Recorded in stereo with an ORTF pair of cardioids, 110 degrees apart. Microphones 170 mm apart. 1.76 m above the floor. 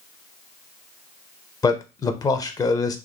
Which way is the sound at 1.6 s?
20° left.